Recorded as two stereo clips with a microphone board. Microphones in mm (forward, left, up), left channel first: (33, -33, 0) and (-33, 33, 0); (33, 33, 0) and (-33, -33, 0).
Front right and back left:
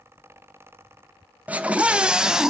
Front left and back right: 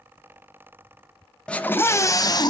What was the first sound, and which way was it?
A scream, 105° left.